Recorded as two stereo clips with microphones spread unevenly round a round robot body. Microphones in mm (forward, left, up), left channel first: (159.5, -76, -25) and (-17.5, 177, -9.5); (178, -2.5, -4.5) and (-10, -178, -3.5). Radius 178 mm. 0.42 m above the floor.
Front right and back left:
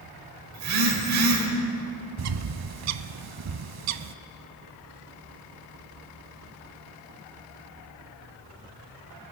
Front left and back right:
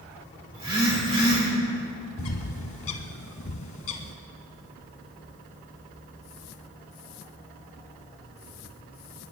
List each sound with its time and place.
0.5 s a phone buzzing: 150° left, 2 m
2.2 s a bird: 90° left, 0.5 m